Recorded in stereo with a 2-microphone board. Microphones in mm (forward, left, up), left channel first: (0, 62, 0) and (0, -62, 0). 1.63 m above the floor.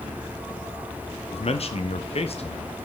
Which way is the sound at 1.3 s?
55° left (ahead or behind).